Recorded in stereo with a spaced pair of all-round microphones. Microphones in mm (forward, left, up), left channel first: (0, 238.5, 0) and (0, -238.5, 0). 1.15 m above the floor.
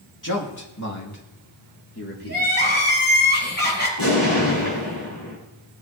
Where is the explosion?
50° left (ahead or behind), 5.5 m.